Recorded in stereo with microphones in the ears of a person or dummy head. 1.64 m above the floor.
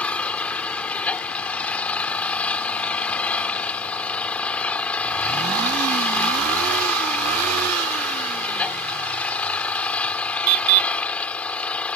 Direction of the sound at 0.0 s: 10° left (ahead or behind).